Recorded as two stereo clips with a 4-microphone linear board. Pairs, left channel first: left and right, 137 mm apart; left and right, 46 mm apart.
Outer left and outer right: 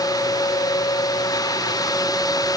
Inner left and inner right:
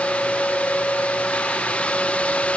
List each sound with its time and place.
Only background noise.